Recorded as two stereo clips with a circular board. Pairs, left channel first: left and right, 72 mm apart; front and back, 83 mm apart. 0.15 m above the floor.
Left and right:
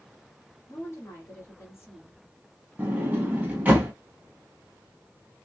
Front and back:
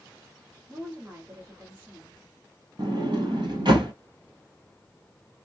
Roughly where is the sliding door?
Behind.